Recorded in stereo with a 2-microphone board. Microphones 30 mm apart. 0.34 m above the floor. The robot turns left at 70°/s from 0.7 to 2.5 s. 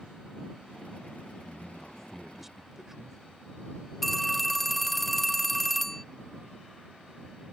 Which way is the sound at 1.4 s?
20° left (ahead or behind).